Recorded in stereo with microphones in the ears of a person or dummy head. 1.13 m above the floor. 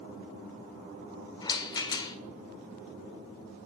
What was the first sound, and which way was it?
A rattle, 20° left (ahead or behind).